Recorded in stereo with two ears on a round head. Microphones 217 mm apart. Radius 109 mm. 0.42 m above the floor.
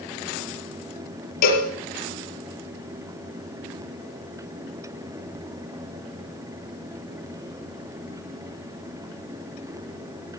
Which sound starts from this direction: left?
A cowbell, at 1.4 s.